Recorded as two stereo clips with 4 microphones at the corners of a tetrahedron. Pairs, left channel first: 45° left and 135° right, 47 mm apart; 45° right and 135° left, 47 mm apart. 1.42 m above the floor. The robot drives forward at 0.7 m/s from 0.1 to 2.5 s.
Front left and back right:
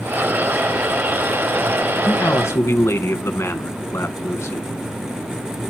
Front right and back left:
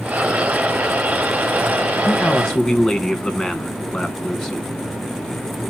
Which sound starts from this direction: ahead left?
A man speaking, at 2.0 s.